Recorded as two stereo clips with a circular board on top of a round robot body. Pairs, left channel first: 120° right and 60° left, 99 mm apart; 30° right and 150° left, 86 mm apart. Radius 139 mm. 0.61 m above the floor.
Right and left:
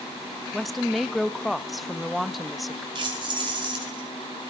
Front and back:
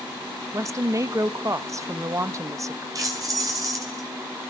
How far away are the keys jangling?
About 4.5 m.